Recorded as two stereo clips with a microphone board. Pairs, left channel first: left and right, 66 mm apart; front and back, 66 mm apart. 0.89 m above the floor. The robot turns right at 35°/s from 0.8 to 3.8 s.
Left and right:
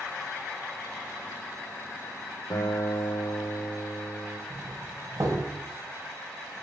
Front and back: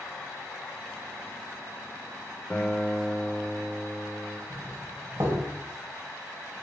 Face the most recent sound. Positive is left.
turn(degrees=-130)